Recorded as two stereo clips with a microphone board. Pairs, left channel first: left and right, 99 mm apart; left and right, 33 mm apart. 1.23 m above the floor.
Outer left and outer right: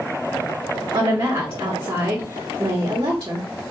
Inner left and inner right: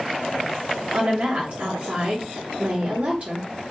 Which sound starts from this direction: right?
A woman speaking, at 0.9 s.